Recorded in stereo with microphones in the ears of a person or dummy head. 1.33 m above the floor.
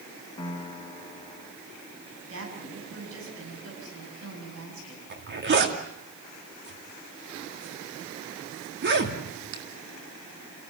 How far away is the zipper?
About 2.5 m.